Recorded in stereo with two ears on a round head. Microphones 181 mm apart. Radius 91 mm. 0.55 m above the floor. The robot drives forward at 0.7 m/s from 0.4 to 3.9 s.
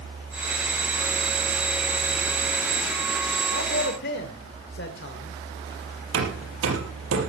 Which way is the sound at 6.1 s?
80° right.